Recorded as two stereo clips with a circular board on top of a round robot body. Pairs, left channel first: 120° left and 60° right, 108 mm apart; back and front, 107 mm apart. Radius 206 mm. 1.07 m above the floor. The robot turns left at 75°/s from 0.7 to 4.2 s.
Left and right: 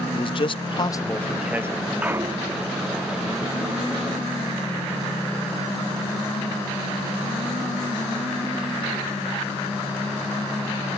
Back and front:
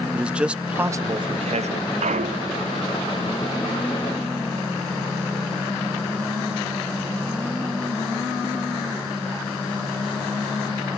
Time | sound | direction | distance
0.1 | a man speaking | 80° left | ?
2.0 | a clunk | 20° left | ?